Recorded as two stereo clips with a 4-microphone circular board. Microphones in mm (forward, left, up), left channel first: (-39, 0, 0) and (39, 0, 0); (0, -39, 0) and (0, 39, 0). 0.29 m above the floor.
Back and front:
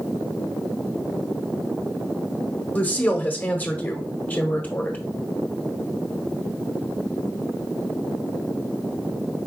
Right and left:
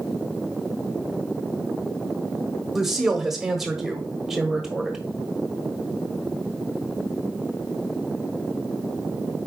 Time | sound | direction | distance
2.8 | a woman speaking | 170° left | 0.9 m